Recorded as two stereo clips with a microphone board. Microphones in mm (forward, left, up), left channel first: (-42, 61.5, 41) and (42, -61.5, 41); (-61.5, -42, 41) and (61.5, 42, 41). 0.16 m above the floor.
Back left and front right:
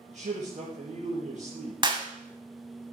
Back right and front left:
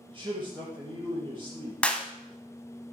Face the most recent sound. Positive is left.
turn(degrees=-70)